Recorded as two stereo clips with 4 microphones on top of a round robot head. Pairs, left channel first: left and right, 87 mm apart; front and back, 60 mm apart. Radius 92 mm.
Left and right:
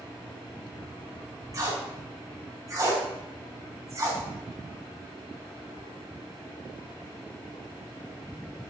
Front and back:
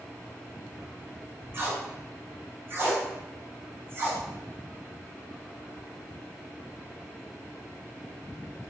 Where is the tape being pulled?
140° right, 0.6 m.